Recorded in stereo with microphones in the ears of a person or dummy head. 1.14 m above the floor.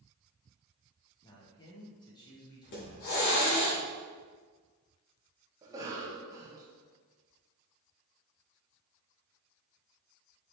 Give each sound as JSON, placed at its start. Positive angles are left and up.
{"t": 1.2, "sound": "a man speaking", "side_deg": 15, "distance_m": 1.0}
{"t": 2.6, "sound": "a hiss", "side_deg": 55, "distance_m": 1.4}
{"t": 5.6, "sound": "a cough", "side_deg": -20, "distance_m": 0.6}